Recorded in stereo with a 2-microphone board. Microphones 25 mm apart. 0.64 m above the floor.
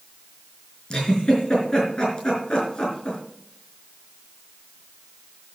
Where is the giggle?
35° left (ahead or behind), 4.5 m.